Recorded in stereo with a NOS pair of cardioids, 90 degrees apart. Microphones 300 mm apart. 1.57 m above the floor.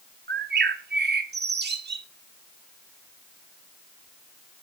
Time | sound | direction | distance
0.3 | a bird | 35° right | 1.6 m